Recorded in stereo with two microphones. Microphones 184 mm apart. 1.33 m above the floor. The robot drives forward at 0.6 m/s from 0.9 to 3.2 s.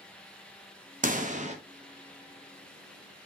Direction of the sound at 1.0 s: 45° right (ahead or behind).